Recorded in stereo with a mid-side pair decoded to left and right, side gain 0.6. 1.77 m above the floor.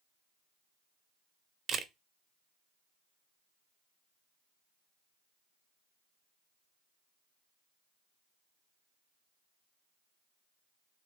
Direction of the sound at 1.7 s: 35° right.